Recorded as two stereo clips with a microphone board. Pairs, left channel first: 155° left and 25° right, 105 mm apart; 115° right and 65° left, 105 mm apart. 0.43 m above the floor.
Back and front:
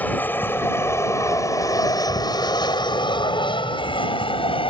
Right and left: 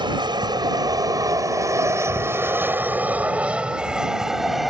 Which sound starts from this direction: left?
An aircraft, at 0.0 s.